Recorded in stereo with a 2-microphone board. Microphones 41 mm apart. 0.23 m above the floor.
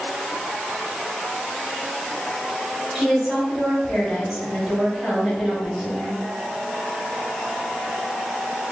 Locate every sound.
3.0 s a woman speaking: 5° right (ahead or behind), 1.1 m